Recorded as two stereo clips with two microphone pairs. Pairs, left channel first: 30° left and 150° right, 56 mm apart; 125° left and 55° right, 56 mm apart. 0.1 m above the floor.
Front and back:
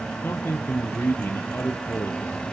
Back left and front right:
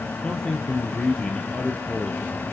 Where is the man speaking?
65° left, 2 m.